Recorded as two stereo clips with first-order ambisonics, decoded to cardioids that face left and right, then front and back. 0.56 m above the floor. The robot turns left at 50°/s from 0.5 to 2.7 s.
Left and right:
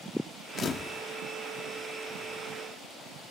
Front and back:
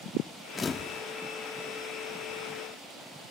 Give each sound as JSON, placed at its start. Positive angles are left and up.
{"t": 0.6, "sound": "a camera shutter", "azimuth_deg": 55}